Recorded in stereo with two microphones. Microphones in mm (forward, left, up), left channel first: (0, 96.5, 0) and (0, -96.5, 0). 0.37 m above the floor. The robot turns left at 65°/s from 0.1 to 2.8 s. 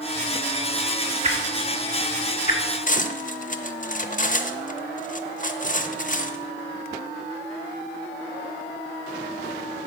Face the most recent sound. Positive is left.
turn(degrees=45)  # may be behind; listen again after turning